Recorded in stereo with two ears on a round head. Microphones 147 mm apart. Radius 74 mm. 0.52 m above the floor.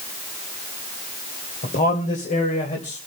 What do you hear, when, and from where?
1.6 s a man speaking: 55° left (ahead or behind), 2.5 m; by 3.0 s 45° left (ahead or behind), 3 m